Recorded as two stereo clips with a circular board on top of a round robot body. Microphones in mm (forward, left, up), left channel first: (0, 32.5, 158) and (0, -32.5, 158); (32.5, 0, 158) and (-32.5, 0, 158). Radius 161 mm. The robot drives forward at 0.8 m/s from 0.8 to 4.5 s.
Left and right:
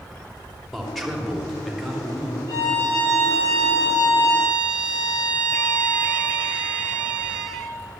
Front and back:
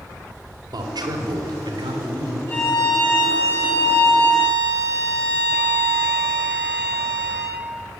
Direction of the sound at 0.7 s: Straight behind.